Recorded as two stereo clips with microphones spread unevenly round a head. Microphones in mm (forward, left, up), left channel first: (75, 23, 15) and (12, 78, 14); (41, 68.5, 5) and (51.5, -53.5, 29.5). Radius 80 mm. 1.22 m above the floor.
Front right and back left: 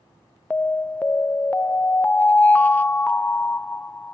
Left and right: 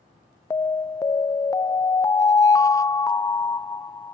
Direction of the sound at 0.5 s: 30° left.